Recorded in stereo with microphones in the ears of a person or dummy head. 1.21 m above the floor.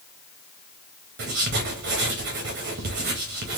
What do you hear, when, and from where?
1.2 s writing: 45° right (ahead or behind), 0.7 m